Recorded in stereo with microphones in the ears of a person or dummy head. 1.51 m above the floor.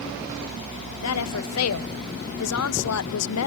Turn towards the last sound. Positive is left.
turn(degrees=85)